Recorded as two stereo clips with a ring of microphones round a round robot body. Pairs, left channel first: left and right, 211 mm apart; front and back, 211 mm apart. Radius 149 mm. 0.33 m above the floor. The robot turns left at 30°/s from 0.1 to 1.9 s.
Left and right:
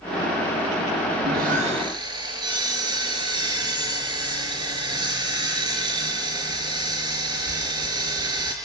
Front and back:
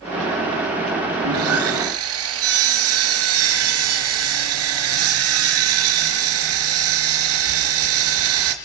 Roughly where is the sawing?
Behind right.